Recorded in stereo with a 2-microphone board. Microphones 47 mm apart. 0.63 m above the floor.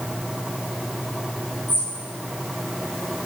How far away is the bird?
About 3.5 m.